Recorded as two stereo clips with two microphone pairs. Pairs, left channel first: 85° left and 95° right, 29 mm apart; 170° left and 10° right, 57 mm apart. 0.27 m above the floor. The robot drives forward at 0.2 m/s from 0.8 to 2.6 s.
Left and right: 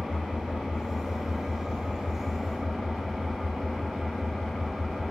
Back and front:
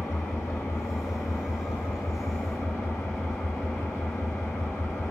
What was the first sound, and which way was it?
An engine running, 170° right.